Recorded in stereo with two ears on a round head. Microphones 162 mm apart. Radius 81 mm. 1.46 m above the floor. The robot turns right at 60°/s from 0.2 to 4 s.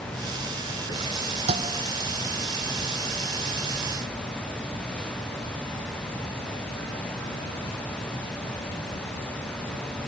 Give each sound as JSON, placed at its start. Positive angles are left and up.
{"t": 1.5, "sound": "a thud", "side_deg": -35}